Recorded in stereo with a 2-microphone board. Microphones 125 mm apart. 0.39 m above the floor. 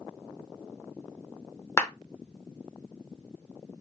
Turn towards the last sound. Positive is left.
turn(degrees=20)  # may be behind; listen again after turning